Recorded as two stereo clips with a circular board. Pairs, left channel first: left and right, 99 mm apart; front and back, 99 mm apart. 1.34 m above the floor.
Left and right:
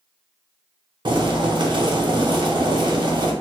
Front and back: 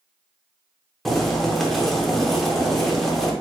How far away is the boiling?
About 0.6 m.